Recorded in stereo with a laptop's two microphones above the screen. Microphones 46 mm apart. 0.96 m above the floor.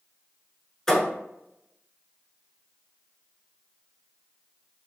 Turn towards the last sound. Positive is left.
turn(degrees=10)  # may be behind; listen again after turning